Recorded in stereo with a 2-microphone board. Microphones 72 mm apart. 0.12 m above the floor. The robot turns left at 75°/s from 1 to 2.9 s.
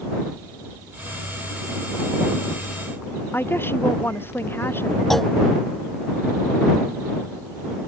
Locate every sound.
3.3 s a woman speaking: 30° left (ahead or behind)
5.1 s a clunk: 5° left (ahead or behind)